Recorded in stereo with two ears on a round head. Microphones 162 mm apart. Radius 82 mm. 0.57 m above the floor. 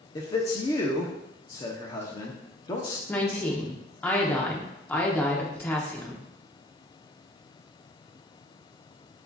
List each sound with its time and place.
0.1 s a man speaking: 25° left (ahead or behind), 0.7 m
3.1 s a woman speaking: 10° left (ahead or behind), 0.9 m